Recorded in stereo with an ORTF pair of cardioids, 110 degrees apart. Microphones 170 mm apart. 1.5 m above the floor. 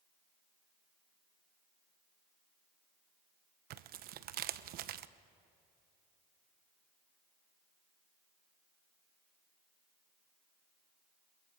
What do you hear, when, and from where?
3.7 s tearing paper: 65° right, 0.9 m